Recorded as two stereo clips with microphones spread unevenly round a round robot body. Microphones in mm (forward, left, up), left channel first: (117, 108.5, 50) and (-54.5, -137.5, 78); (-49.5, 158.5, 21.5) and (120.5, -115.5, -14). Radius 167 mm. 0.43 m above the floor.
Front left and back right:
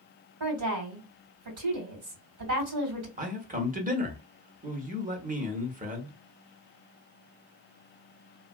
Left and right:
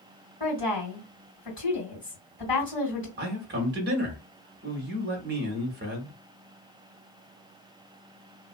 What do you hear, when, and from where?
0.4 s a woman speaking: 165° right, 2.5 m
3.2 s a man speaking: 70° right, 1.1 m